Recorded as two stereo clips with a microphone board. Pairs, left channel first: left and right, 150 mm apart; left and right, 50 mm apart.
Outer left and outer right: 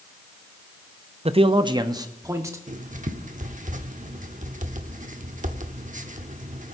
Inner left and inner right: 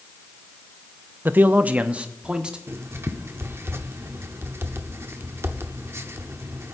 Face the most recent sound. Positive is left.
turn(degrees=-60)  # may be behind; listen again after turning